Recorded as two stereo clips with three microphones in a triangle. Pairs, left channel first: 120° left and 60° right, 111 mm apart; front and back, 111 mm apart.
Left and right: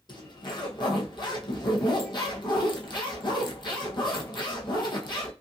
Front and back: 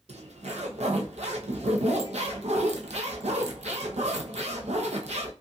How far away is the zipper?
About 0.7 m.